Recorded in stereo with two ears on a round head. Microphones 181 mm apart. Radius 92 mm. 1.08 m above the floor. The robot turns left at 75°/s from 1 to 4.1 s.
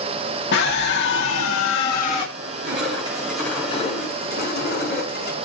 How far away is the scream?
About 1.8 m.